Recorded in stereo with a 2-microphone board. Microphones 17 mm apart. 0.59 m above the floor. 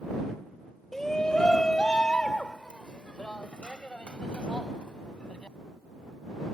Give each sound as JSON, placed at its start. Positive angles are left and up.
{"t": 0.9, "sound": "a shout", "side_deg": 25}